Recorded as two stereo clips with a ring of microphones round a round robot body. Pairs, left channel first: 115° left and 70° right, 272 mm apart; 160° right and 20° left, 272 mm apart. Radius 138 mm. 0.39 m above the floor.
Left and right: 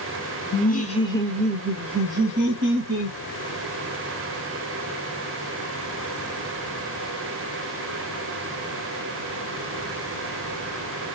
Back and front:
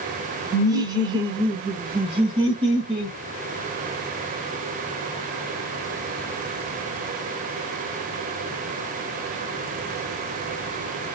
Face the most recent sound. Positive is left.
turn(degrees=-50)